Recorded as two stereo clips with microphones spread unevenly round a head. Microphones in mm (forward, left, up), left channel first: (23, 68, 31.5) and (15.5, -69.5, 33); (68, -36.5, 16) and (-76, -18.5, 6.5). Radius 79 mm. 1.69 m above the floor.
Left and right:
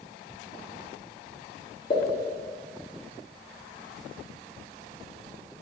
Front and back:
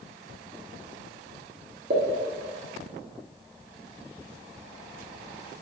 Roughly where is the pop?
Behind left.